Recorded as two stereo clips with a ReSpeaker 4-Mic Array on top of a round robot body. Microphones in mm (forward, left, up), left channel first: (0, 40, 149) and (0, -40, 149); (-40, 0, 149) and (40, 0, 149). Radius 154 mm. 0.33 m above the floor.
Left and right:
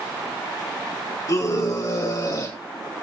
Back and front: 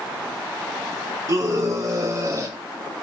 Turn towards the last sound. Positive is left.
turn(degrees=50)